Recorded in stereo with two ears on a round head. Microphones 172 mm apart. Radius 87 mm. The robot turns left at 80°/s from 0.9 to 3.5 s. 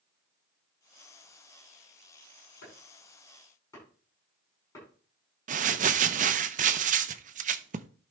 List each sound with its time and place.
2.6 s chopping: 85° left, 8 m; by 4.9 s 15° left (ahead or behind), 8 m
5.5 s crumpling: 40° right (ahead or behind), 0.6 m